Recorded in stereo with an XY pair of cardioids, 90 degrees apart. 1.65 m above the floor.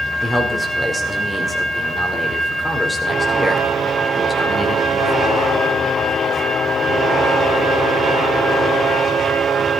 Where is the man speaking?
20° left, 4.5 m.